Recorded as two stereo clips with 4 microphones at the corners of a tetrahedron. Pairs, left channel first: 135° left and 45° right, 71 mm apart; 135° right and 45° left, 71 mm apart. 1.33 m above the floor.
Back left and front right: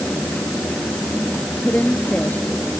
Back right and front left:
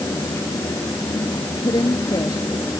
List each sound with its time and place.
1.6 s a woman speaking: 155° right